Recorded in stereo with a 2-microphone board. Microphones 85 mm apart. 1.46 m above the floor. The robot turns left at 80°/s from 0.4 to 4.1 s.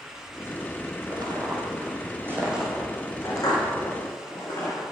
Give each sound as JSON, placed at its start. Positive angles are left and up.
{"t": 1.1, "sound": "footsteps", "side_deg": -50, "distance_m": 2.5}